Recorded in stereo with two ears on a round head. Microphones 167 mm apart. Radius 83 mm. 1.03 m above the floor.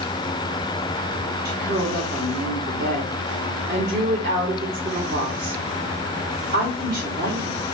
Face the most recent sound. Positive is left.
turn(degrees=-50)  # may be behind; listen again after turning